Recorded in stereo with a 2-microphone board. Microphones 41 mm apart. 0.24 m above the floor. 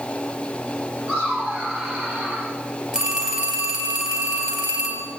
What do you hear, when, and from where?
1.1 s laughter: 70° right (ahead or behind), 5.5 m
2.9 s a phone ringing: 25° right (ahead or behind), 3 m